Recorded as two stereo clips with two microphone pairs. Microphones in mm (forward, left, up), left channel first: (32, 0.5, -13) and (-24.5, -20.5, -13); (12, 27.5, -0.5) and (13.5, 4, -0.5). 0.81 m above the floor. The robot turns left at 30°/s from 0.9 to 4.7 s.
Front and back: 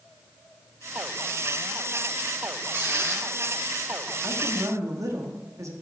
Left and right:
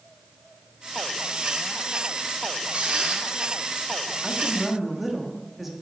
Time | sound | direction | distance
2.7 | a squeak | 105° right | 1.4 m
4.2 | a woman speaking | 155° right | 1.3 m